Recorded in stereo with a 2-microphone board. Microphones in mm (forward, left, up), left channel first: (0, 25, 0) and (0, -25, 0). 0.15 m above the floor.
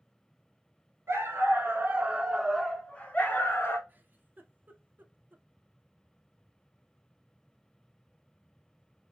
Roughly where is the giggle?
Right.